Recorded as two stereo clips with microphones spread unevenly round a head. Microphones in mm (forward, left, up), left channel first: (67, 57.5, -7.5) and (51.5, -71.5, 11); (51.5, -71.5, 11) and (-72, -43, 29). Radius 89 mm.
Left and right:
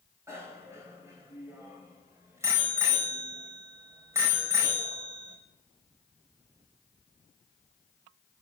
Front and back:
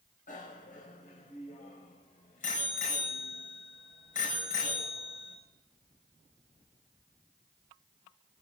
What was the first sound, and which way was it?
A bicycle bell, 30° right.